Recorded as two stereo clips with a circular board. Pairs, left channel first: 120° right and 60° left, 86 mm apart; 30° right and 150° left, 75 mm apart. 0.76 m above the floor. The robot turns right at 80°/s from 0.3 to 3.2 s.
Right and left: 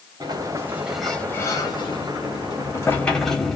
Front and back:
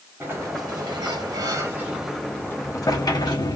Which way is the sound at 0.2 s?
95° left.